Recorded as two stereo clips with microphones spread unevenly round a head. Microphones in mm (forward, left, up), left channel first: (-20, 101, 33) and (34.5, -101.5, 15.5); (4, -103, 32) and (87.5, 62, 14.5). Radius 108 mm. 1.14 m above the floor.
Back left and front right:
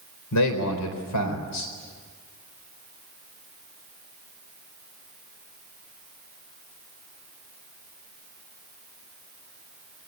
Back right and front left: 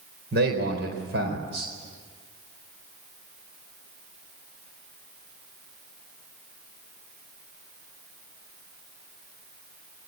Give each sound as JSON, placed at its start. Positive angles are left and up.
{"t": 0.3, "sound": "a man speaking", "azimuth_deg": 110, "distance_m": 4.0}